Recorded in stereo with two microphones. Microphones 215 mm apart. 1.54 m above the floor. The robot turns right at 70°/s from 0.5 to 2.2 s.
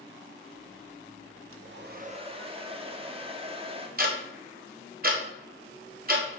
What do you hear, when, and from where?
1.5 s a hair dryer: 75° right, 0.8 m; by 3.9 s 25° right, 0.8 m
4.0 s ticking: 45° right (ahead or behind), 1.2 m